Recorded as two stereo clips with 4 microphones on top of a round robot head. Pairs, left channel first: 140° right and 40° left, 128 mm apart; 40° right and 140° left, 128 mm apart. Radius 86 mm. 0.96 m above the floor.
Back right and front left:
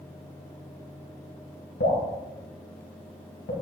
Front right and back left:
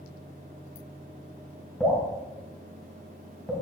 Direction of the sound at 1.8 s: 130° right.